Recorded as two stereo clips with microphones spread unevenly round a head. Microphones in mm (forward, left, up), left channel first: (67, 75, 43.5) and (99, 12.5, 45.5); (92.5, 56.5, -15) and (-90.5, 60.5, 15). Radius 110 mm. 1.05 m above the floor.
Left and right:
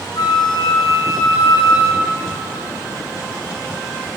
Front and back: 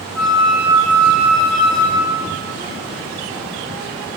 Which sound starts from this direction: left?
A flute, at 0.1 s.